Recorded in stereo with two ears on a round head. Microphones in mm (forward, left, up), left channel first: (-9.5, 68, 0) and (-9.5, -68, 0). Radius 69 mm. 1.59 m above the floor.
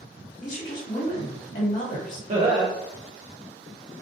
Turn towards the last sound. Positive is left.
turn(degrees=-45)  # may be behind; listen again after turning